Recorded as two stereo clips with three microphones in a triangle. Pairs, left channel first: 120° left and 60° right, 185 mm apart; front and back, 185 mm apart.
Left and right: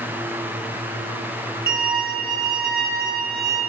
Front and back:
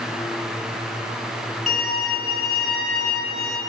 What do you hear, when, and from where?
1.7 s a violin: 85° right, 8 m